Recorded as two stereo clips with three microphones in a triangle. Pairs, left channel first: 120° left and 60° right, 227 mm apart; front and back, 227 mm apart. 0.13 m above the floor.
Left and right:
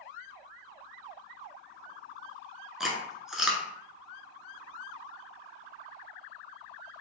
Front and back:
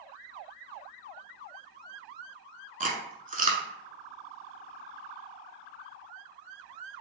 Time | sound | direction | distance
2.8 | chewing | 145° right | 0.6 m